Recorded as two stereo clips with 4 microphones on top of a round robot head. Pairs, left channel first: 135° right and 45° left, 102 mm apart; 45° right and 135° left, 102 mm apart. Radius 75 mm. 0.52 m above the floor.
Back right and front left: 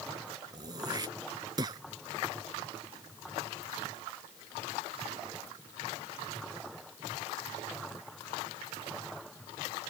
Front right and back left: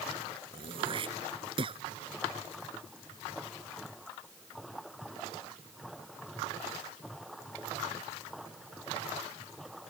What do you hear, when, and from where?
0.5 s throat clearing: 95° left